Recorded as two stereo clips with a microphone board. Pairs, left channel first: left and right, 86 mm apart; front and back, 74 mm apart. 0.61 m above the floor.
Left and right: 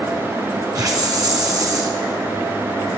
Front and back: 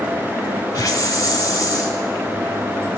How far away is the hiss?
About 1.0 m.